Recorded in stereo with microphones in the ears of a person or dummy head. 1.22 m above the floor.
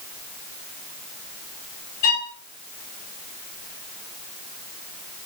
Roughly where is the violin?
Left.